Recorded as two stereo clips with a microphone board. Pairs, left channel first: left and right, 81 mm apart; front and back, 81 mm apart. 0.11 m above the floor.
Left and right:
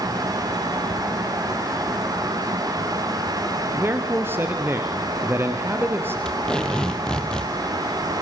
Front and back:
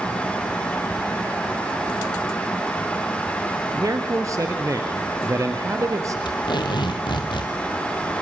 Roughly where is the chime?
I don't hear a chime.